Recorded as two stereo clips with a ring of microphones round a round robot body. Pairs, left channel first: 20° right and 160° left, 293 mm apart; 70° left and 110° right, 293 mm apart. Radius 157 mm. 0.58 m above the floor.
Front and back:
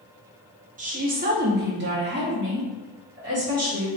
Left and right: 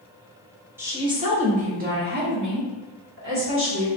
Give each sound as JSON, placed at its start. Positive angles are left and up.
{"t": 0.8, "sound": "a woman speaking", "azimuth_deg": 175, "distance_m": 0.9}